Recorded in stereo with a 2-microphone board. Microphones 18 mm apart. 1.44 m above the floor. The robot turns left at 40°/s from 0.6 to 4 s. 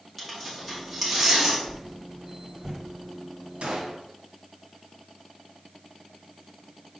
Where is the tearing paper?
10° left (ahead or behind), 2.5 m; by 1.6 s 30° right (ahead or behind), 2.5 m.